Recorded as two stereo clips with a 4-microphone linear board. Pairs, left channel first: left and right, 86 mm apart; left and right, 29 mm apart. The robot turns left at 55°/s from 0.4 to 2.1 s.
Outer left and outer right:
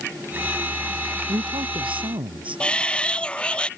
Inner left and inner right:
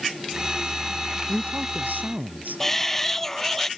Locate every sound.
1.3 s a man speaking: 55° right; by 2.6 s 100° right
2.6 s a shout: 10° left (ahead or behind)